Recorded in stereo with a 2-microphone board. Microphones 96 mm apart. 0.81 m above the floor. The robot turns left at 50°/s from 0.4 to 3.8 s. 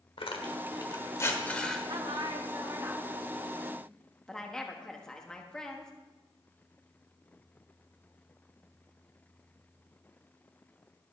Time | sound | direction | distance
0.2 | tearing paper | 70° left (ahead or behind) | 1.3 m
1.9 | a woman speaking | 90° right | 1.3 m